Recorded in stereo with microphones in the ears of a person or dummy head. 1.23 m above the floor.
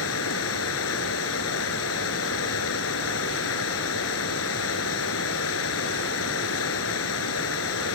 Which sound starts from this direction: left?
Running water, at 0.0 s.